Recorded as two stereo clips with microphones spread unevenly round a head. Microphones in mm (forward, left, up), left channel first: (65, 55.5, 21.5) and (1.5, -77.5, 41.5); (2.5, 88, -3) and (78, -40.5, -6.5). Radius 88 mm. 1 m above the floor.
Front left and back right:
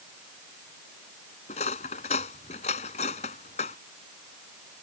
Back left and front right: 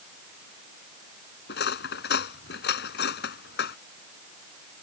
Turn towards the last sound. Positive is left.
turn(degrees=120)